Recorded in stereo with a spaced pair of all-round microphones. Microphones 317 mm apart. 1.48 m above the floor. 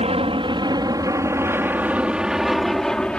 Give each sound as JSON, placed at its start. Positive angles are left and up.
{"t": 0.0, "sound": "an aircraft", "side_deg": -20}